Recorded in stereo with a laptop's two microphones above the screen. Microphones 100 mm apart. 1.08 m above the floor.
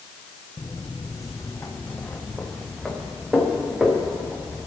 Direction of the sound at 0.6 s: 50° left (ahead or behind).